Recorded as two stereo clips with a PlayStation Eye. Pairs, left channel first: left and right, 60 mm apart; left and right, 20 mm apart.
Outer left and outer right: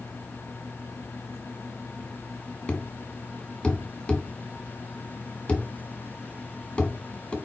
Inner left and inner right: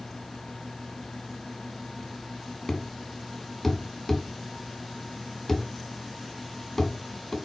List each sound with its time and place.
2.7 s a thud: 15° left (ahead or behind), 1.6 m